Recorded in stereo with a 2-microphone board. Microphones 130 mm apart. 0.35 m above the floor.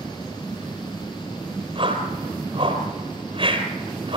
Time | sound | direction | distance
1.8 | a whoosh | 40° right (ahead or behind) | 3.5 m